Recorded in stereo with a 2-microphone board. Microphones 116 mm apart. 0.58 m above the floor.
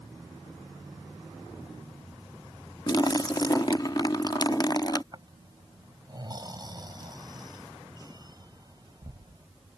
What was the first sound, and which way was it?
A splash, 35° left (ahead or behind).